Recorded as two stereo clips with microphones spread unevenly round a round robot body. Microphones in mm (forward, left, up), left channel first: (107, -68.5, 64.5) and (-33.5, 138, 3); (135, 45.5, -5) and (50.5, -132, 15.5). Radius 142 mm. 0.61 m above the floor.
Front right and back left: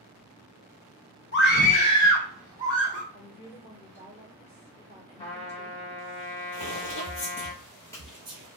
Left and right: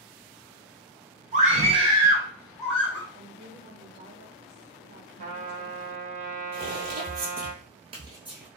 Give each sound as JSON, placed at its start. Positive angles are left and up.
{"t": 1.3, "sound": "a scream", "azimuth_deg": -85, "distance_m": 0.9}
{"t": 3.1, "sound": "a woman speaking", "azimuth_deg": -125, "distance_m": 1.1}
{"t": 5.2, "sound": "a trumpet", "azimuth_deg": -125, "distance_m": 1.1}
{"t": 6.5, "sound": "footsteps", "azimuth_deg": -85, "distance_m": 1.6}